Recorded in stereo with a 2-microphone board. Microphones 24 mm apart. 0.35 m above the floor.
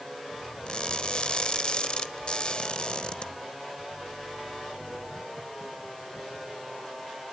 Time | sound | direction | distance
0.7 | crushing | 45° left (ahead or behind) | 1.0 m